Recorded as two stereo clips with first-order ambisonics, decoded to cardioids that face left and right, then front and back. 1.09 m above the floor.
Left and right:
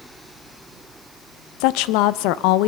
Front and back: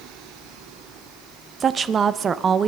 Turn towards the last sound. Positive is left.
turn(degrees=110)